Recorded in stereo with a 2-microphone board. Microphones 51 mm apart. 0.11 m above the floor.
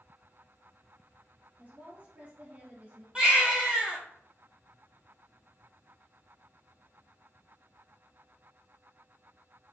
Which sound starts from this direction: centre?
A baby crying, at 3.1 s.